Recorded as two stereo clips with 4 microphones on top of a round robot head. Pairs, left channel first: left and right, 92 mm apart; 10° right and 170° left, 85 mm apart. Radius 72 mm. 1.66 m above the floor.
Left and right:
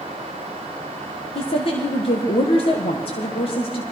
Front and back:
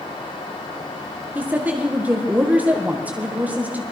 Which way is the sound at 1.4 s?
100° left.